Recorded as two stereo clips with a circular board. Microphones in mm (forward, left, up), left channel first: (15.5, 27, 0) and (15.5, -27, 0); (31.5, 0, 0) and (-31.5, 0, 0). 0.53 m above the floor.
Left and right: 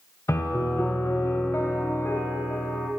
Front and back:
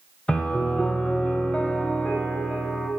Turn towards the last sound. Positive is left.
turn(degrees=70)